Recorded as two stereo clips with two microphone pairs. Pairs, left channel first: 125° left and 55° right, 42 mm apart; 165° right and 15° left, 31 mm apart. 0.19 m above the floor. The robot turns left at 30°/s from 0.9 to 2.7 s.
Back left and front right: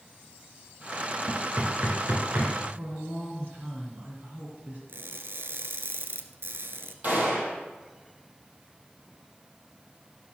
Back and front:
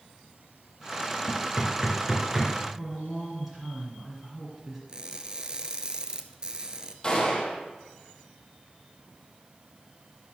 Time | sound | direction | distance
1.3 | knocking | 30° right | 2.5 m
2.8 | a woman speaking | 70° right | 2 m
4.9 | crushing | 50° right | 0.8 m
7.0 | a gunshot | 100° right | 3 m